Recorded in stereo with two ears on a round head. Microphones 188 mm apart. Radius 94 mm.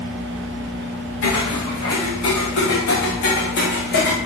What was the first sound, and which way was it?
Footsteps, 75° left (ahead or behind).